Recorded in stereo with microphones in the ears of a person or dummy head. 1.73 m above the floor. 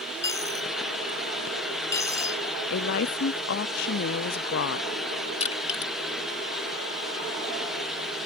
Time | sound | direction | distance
0.2 | a dropped coin | 15° left (ahead or behind) | ?
2.7 | a woman speaking | 65° left (ahead or behind) | ?
5.4 | crushing | 35° left (ahead or behind) | ?